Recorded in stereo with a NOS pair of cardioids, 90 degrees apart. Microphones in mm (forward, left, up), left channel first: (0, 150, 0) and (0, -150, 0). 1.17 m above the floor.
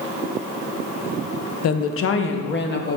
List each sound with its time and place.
1.6 s a woman speaking: 55° left, 0.8 m; by 3.0 s 35° left, 1.5 m